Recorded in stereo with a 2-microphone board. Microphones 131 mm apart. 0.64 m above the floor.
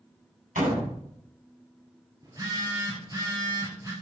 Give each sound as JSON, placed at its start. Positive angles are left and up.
{"t": 0.6, "sound": "a door slam", "side_deg": -85, "distance_m": 3.0}
{"t": 2.2, "sound": "a phone buzzing", "side_deg": -30, "distance_m": 2.5}